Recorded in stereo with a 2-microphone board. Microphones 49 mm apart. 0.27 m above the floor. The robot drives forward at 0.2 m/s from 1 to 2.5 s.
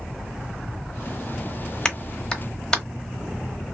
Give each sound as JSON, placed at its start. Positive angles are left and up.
{"t": 1.9, "sound": "a clap", "side_deg": 15, "distance_m": 0.8}